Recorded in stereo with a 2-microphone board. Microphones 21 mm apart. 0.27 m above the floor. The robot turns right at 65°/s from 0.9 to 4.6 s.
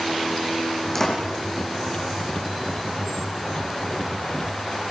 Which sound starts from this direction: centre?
A door slam, at 0.9 s.